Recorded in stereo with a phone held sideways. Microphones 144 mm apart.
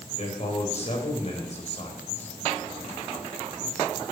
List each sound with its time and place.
0.2 s a man speaking: 50° left (ahead or behind), 4.5 m